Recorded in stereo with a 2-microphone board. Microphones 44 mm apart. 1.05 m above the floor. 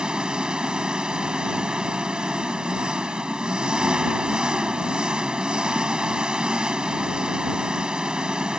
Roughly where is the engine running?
Right.